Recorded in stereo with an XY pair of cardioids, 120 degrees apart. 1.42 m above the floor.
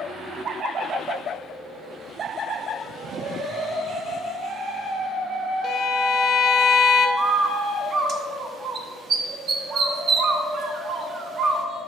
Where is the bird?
45° right, 0.8 m.